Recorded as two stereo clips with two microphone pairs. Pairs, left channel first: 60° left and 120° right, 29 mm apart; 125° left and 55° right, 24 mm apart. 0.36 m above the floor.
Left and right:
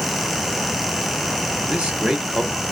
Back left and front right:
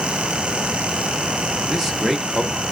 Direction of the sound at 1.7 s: 115° right.